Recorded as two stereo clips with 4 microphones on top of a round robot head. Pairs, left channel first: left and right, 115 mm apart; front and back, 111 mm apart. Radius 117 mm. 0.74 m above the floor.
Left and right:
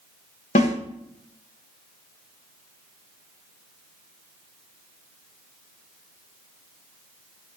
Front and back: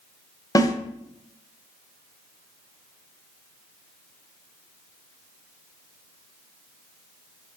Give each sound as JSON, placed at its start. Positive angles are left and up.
{"t": 0.6, "sound": "a snare drum", "azimuth_deg": 55, "distance_m": 1.4}